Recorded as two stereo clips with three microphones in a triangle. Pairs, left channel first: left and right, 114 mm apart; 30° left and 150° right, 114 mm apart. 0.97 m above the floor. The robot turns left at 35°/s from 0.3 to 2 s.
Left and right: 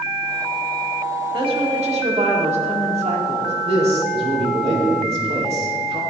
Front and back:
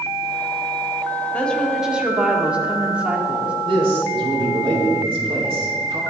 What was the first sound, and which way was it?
A woman speaking, 45° right.